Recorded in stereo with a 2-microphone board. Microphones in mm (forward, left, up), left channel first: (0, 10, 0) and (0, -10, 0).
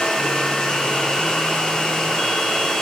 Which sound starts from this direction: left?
Running water, at 0.0 s.